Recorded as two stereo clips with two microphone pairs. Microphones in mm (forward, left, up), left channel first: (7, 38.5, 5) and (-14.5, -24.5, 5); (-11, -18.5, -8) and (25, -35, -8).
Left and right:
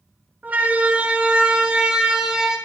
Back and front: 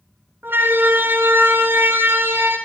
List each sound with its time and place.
0.4 s a siren: 40° right, 7.5 m; by 2.6 s 25° right, 9 m